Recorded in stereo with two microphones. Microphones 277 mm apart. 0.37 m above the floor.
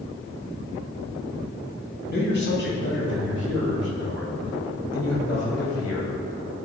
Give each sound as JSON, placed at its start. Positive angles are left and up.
{"t": 2.1, "sound": "a man speaking", "side_deg": 40, "distance_m": 2.5}